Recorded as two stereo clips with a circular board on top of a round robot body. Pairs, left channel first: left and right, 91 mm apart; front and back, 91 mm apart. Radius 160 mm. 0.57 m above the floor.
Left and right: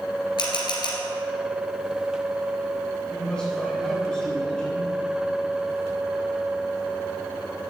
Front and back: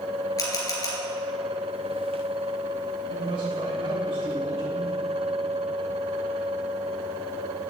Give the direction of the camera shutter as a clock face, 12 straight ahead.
10 o'clock.